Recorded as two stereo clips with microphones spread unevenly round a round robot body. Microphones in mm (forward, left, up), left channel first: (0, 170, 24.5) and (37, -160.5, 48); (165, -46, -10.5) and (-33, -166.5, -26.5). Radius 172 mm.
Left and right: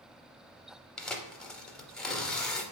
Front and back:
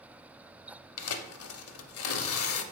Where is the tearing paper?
10° left, 0.5 m.